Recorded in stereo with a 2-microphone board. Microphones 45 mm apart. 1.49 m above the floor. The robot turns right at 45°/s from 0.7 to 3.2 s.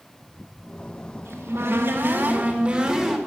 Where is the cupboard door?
90° right, 2.5 m; by 3.2 s straight ahead, 2.5 m.